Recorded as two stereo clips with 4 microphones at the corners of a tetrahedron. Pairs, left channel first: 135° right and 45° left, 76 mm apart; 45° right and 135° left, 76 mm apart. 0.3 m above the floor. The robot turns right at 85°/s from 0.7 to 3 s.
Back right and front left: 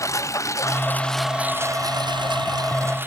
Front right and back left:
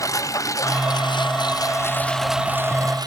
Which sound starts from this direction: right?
A lawn mower, at 0.0 s.